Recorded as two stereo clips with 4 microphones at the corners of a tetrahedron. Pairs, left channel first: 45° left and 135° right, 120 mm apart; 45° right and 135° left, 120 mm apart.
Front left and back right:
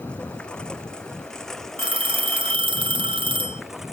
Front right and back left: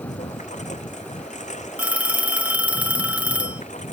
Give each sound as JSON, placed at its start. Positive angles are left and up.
{"t": 0.0, "sound": "a lawn mower", "azimuth_deg": -35}
{"t": 1.8, "sound": "a phone ringing", "azimuth_deg": -150}